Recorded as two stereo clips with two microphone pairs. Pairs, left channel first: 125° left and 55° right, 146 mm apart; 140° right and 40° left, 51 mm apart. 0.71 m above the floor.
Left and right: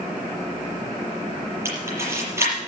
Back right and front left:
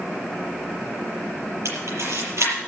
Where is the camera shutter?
15° left, 6.5 m.